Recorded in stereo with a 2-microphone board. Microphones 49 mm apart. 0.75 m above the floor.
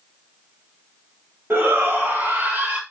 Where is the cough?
No cough in this recording.